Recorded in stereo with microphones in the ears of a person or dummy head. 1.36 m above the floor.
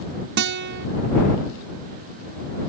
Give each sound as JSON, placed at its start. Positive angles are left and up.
{"t": 0.4, "sound": "a guitar", "side_deg": -55}